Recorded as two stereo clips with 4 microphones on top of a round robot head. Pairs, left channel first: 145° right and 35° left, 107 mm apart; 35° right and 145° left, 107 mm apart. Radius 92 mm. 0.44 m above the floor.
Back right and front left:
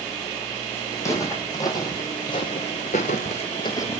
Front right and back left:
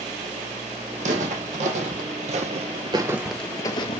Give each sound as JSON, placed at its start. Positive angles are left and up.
{"t": 1.0, "sound": "footsteps", "azimuth_deg": 150, "distance_m": 1.7}